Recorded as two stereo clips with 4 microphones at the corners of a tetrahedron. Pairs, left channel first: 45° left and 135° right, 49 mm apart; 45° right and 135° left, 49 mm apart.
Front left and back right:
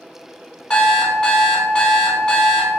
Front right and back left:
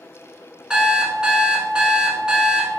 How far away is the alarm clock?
About 0.6 m.